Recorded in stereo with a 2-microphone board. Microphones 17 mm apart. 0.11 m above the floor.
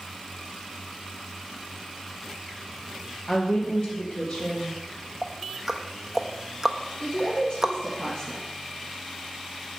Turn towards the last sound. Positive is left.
turn(degrees=50)  # may be behind; listen again after turning